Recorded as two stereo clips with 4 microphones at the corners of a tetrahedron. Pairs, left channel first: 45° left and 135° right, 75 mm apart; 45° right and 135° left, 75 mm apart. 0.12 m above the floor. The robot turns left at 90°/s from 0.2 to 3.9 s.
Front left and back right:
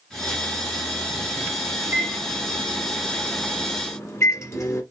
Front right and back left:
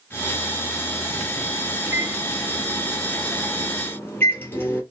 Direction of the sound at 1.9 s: 170° right.